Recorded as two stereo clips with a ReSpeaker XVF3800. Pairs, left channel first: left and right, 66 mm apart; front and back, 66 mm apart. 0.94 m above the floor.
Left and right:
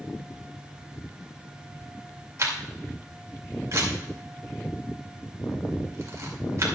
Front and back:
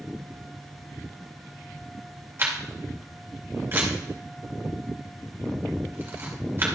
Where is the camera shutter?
125° right, 2.5 m.